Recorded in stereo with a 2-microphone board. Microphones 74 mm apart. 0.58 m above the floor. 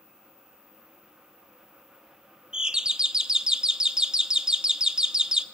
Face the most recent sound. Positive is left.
turn(degrees=-10)  # may be behind; listen again after turning